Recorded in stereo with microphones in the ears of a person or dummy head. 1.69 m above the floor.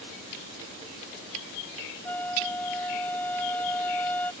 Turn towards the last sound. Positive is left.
turn(degrees=10)  # may be behind; listen again after turning